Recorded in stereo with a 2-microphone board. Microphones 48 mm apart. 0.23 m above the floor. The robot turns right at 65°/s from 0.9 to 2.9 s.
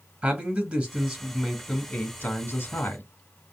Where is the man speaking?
40° right, 2.5 m; by 3.1 s 90° left, 2.5 m.